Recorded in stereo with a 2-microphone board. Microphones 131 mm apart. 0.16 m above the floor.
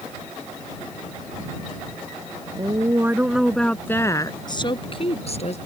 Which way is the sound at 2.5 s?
30° right (ahead or behind).